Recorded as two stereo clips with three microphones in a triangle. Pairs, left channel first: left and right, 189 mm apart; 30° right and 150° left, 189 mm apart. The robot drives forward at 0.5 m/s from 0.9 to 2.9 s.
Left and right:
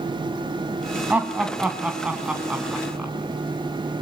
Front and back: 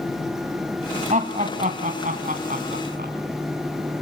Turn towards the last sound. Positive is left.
turn(degrees=-175)